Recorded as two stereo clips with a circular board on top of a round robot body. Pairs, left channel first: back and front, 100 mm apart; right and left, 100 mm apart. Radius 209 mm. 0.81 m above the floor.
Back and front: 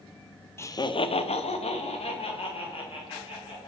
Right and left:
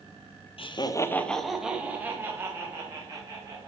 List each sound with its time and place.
0.6 s laughter: 115° right, 0.7 m; by 3.7 s 150° left, 2.5 m